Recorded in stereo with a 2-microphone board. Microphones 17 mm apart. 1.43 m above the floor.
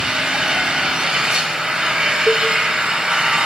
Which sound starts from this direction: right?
An engine running, at 0.0 s.